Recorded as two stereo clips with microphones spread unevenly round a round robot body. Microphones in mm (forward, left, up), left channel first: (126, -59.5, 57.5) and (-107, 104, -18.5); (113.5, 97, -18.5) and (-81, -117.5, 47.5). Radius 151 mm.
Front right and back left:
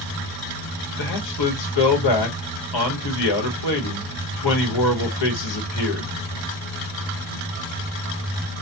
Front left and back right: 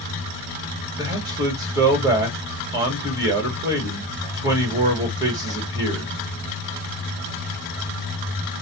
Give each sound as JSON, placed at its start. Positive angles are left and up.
{"t": 1.0, "sound": "a man speaking", "azimuth_deg": -50, "distance_m": 1.5}